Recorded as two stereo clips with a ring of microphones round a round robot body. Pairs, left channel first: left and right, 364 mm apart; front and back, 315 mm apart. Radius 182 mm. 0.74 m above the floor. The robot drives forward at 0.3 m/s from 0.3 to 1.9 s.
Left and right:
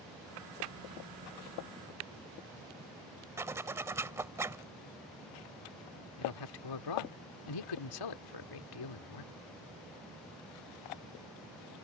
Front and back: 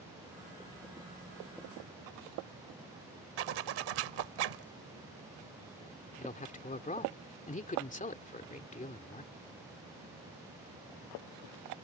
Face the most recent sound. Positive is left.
turn(degrees=65)